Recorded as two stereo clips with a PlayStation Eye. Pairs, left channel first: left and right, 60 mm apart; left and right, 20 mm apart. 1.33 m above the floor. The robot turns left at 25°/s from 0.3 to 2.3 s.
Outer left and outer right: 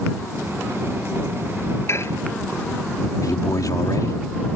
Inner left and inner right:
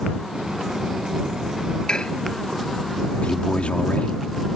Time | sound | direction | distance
1.9 | dishes clattering | 45° left (ahead or behind) | ?
3.2 | a man speaking | 85° left | ?